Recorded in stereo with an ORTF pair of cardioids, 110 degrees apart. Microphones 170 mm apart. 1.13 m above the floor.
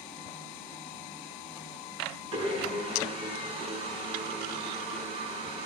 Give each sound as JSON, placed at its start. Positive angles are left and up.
{"t": 2.3, "sound": "a blender", "azimuth_deg": -40, "distance_m": 7.0}